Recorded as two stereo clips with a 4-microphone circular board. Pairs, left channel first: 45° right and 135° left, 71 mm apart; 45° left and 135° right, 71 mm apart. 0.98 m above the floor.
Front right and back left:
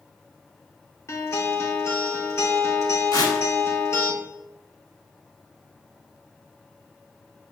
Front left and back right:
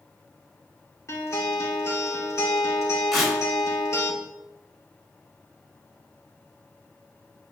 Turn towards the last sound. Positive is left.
turn(degrees=-45)